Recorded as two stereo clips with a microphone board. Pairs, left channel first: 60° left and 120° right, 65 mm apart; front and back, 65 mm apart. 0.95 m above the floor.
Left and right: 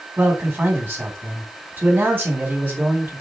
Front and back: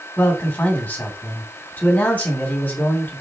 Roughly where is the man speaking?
Ahead right.